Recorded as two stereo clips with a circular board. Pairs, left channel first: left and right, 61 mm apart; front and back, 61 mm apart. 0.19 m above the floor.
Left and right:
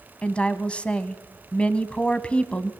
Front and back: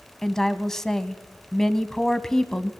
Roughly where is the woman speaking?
Left.